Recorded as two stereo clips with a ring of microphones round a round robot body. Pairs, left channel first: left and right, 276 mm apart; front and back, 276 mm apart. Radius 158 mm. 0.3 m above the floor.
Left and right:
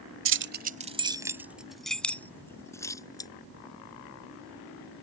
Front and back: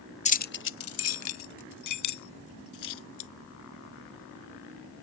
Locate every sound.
0.2 s keys jangling: 60° right; by 3.3 s 15° left